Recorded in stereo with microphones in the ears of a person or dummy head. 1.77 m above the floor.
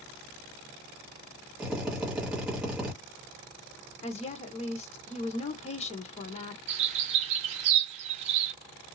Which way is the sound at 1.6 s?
Centre (ahead or behind).